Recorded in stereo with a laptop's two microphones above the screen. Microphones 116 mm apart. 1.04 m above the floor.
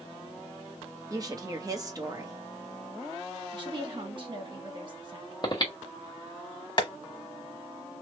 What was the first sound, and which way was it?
A woman speaking, 30° right (ahead or behind).